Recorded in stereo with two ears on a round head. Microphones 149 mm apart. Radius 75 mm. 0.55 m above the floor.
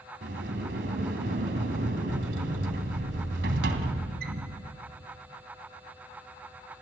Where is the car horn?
I don't hear a car horn.